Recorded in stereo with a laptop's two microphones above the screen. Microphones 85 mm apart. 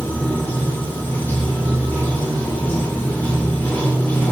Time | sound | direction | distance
0.0 | running water | 20° left (ahead or behind) | 0.8 m